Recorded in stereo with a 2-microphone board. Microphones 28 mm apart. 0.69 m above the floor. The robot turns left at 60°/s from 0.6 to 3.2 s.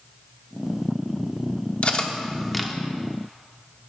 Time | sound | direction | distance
1.8 | cutlery clinking | 45° left (ahead or behind) | 0.9 m